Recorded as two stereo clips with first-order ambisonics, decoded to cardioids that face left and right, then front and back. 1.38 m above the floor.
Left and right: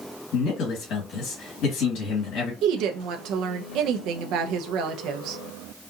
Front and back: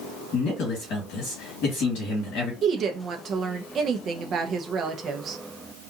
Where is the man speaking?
45° left, 2.5 m.